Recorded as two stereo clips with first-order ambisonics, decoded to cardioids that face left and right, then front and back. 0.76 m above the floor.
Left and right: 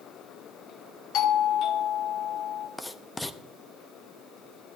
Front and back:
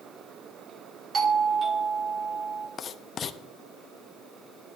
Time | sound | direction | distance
1.1 | a doorbell | 120° left | 1.4 m
2.8 | writing | 15° left | 0.6 m